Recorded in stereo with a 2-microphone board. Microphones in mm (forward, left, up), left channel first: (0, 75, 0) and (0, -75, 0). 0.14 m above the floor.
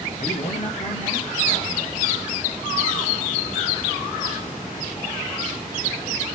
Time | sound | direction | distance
0.2 | a man speaking | 55° left (ahead or behind) | 2.5 m